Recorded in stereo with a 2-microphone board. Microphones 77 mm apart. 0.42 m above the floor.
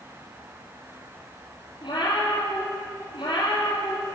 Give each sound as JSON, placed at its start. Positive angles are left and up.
{"t": 1.8, "sound": "a cat meowing", "side_deg": 70, "distance_m": 3.0}